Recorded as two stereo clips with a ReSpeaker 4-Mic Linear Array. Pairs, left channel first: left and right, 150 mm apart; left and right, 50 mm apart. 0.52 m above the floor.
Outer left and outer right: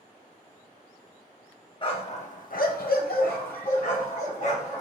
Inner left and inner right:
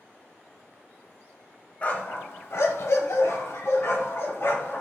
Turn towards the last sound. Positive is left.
turn(degrees=55)  # may be behind; listen again after turning